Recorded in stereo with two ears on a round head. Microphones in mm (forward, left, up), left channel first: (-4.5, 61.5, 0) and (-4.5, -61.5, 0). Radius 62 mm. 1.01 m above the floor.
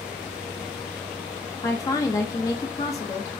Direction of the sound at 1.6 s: 25° left (ahead or behind).